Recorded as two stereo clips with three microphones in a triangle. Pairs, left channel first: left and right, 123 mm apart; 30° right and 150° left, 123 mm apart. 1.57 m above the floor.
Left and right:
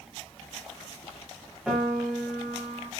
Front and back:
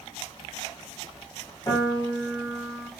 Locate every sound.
1.7 s a piano: 10° right, 1.5 m